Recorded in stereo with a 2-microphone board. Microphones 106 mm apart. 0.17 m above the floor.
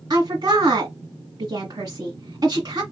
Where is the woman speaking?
40° right (ahead or behind), 1.6 m.